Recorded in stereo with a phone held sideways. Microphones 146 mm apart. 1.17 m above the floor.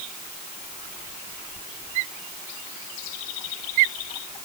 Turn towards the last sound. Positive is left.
No sound to turn to.